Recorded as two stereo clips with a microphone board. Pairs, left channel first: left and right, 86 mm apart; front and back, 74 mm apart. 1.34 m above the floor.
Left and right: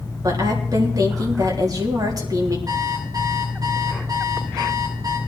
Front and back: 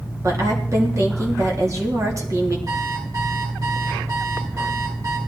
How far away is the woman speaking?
About 3.5 m.